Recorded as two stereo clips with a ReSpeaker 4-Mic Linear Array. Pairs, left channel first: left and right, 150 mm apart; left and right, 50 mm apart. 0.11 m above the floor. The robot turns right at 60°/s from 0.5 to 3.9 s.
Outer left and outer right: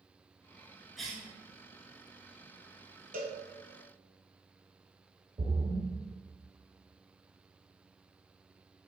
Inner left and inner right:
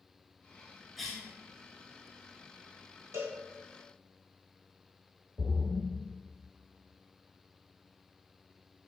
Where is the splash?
35° right (ahead or behind), 1.3 m.